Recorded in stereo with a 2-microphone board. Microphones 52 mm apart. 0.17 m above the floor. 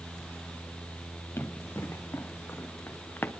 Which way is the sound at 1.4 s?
45° left (ahead or behind).